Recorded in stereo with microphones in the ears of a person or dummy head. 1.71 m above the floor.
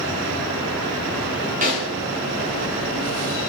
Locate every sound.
1.6 s a snare drum: 35° right (ahead or behind), 0.8 m